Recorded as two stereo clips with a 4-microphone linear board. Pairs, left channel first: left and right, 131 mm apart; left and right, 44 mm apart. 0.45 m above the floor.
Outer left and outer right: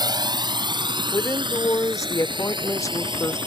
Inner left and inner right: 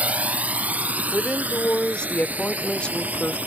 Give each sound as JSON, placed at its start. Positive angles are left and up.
{"t": 0.0, "sound": "a drone", "side_deg": -35}
{"t": 1.1, "sound": "a woman speaking", "side_deg": 25}